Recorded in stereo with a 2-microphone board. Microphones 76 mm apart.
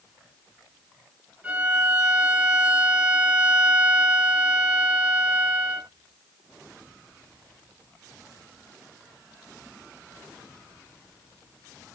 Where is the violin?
15° right (ahead or behind), 0.6 m.